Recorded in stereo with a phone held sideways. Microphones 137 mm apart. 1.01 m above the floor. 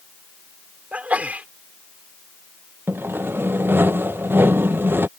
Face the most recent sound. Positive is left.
turn(degrees=-15)  # may be behind; listen again after turning